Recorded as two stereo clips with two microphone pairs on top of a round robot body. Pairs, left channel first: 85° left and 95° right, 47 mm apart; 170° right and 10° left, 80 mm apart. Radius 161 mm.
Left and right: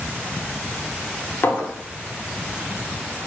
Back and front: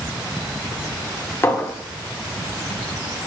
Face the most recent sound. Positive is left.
turn(degrees=125)